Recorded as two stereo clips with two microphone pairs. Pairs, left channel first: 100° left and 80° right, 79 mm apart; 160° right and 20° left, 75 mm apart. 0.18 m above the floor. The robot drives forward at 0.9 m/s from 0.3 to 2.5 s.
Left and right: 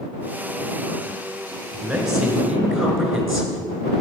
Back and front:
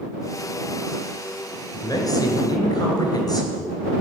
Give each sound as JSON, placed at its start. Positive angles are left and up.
{"t": 1.7, "sound": "a man speaking", "azimuth_deg": -155, "distance_m": 2.5}